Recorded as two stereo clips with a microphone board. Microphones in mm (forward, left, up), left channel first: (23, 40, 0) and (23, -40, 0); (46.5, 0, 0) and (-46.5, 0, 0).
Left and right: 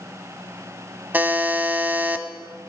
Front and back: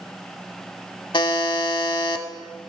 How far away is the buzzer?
About 0.8 m.